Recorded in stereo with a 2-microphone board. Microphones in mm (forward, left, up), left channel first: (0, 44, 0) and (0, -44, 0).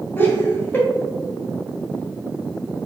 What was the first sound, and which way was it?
Laughter, 25° left (ahead or behind).